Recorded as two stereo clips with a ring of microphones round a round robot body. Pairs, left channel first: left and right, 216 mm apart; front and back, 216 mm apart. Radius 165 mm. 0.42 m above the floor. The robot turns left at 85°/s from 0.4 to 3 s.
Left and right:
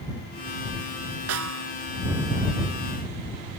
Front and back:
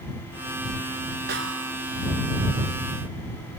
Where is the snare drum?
120° right; by 1.8 s 160° right.